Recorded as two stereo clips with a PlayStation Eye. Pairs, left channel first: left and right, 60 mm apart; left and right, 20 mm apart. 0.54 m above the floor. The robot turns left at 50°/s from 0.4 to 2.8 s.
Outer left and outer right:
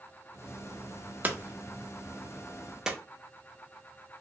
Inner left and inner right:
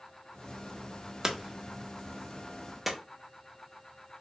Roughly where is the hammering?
Right.